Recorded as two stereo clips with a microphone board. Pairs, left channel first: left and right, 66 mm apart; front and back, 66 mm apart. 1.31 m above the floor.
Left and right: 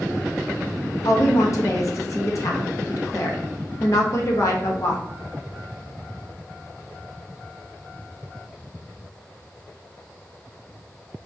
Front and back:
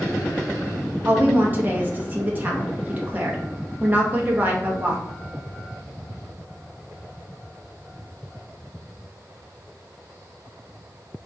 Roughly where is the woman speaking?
Behind left.